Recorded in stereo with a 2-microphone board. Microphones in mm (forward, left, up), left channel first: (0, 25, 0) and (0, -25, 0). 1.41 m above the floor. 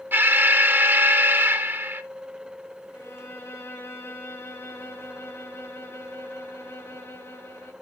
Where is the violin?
75° left (ahead or behind), 7.5 m.